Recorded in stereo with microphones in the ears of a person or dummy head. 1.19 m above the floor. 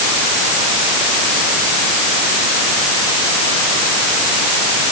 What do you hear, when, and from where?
Only background noise.